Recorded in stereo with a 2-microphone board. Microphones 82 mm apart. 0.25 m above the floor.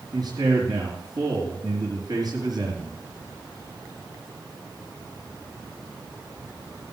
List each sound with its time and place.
0.1 s a man speaking: 55° right (ahead or behind), 4 m